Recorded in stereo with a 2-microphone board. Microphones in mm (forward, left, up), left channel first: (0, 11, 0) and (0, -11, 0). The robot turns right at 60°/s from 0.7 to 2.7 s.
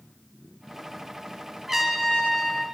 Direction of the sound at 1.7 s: 40° right.